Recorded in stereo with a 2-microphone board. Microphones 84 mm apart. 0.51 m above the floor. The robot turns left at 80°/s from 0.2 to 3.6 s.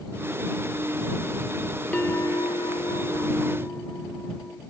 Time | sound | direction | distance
1.9 | a bell | 165° left | ?